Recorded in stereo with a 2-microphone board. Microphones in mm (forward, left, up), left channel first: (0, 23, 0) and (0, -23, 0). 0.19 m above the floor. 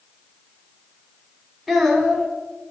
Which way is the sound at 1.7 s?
Centre (ahead or behind).